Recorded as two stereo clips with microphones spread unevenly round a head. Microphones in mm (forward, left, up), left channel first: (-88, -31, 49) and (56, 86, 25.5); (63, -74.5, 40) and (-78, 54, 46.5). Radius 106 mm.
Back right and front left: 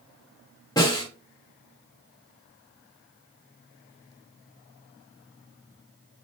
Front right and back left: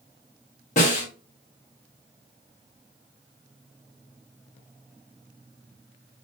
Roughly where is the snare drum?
Right.